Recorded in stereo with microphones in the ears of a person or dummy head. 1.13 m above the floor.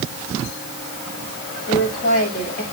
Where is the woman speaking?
50° left (ahead or behind), 6.5 m.